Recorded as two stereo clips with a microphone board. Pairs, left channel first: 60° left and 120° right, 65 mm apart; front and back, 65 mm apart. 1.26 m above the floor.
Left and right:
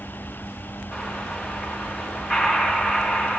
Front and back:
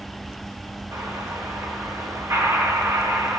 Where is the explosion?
155° left, 2 m.